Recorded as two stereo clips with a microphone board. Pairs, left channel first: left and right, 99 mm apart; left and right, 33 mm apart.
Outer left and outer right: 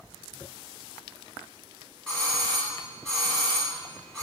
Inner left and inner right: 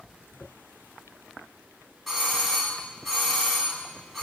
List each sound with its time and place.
2.1 s a doorbell: 5° left (ahead or behind), 2.0 m